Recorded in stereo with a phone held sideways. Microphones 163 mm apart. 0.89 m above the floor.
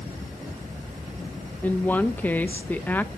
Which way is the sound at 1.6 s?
10° left (ahead or behind).